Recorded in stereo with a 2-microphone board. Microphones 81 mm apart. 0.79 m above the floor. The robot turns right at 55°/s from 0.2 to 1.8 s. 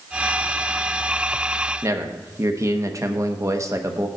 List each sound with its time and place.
1.8 s a man speaking: 40° right (ahead or behind), 0.8 m